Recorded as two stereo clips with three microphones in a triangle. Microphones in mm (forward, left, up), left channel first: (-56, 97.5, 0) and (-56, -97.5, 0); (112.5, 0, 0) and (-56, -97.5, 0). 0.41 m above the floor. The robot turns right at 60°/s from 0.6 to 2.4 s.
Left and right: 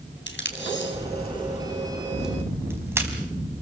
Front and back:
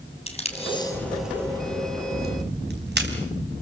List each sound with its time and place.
0.3 s tape being pulled: 85° left, 3.5 m; by 3.1 s 165° right, 3.5 m